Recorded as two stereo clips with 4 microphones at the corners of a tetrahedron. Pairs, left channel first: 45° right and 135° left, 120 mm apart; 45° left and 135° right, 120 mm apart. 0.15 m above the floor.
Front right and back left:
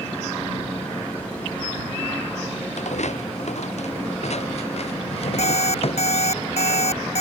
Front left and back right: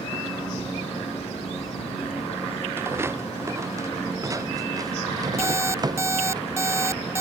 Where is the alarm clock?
70° right.